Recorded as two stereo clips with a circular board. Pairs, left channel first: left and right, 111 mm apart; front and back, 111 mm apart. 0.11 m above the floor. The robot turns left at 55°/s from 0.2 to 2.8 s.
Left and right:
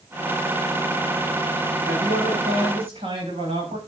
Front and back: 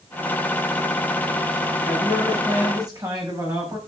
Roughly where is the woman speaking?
Right.